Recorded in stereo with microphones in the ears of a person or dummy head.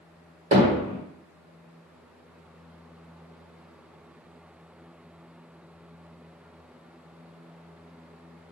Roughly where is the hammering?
Right.